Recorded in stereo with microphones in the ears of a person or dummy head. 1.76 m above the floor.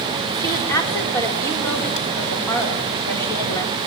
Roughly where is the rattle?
No rattle in this recording.